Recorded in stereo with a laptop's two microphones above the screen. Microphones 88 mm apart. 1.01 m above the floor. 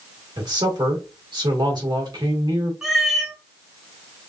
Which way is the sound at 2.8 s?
5° right (ahead or behind).